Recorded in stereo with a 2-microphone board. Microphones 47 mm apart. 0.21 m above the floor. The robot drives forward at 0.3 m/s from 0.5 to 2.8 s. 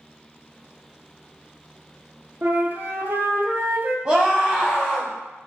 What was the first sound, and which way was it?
A flute, 50° right (ahead or behind).